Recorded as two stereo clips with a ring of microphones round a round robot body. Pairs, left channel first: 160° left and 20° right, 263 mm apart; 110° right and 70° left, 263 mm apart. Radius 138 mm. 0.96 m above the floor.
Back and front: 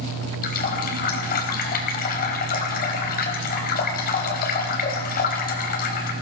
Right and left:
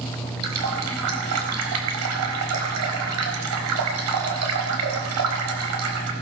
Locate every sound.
0.4 s a running tap: 100° left, 4 m